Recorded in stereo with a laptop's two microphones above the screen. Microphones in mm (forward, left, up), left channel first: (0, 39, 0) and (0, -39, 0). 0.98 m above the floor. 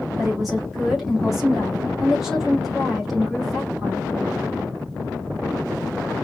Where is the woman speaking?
Centre (ahead or behind), 2 m.